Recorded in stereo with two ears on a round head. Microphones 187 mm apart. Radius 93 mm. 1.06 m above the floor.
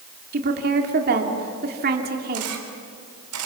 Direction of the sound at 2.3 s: 80° right.